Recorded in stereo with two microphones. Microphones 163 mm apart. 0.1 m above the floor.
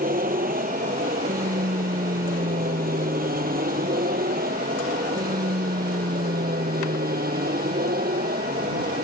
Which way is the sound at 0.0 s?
60° right (ahead or behind).